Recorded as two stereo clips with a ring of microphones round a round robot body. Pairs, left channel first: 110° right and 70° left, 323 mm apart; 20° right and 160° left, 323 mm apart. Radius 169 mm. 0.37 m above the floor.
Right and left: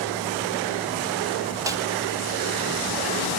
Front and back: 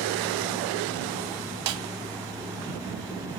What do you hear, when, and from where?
1.7 s a snare drum: 150° left, 1.6 m